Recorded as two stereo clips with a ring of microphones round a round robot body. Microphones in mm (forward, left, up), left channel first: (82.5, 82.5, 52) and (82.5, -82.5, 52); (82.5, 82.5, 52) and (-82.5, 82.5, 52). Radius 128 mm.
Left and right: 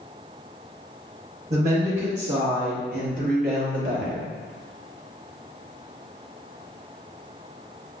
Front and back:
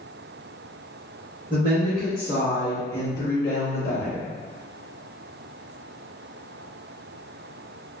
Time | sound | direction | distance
1.5 | a woman speaking | 130° right | 1.2 m